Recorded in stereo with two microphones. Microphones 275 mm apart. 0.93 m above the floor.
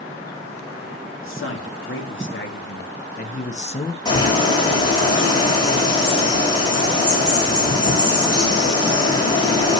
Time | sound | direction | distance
1.2 | a man speaking | 50° left (ahead or behind) | 2.5 m
4.0 | a bird | 15° left (ahead or behind) | 5.5 m